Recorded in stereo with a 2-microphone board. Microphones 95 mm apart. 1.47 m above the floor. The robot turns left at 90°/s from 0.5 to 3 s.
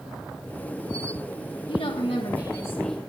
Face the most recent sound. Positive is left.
turn(degrees=0)